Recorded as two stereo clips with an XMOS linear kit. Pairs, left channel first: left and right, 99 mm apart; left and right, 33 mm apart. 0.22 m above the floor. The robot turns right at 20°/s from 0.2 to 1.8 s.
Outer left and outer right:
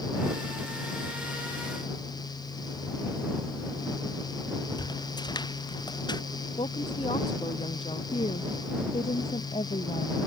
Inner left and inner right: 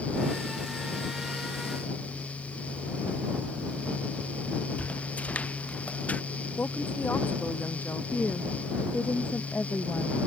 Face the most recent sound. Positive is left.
turn(degrees=75)  # may be behind; listen again after turning